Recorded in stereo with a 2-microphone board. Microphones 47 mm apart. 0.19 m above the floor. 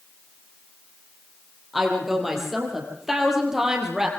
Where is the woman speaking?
5° right (ahead or behind), 6.5 m; by 4.1 s 10° right (ahead or behind), 5.5 m.